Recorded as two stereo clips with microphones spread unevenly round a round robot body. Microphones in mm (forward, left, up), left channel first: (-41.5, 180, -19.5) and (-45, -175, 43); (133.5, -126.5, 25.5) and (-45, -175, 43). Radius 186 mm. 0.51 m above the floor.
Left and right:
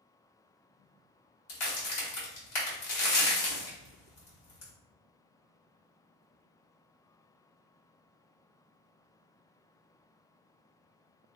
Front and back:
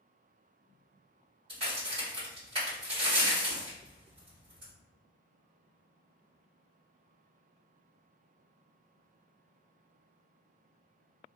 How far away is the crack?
About 1.4 m.